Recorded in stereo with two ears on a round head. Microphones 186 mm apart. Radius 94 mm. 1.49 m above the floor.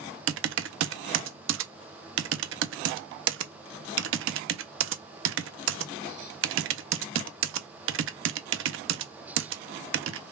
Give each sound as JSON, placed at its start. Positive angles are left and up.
{"t": 0.3, "sound": "typing on a keyboard", "side_deg": -60, "distance_m": 0.5}